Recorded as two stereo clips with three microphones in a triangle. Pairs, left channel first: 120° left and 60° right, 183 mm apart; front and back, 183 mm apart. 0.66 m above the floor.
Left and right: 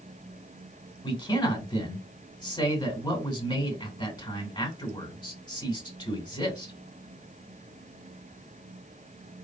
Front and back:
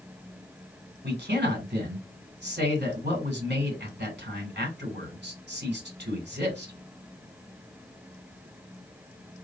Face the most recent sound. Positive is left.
turn(degrees=-175)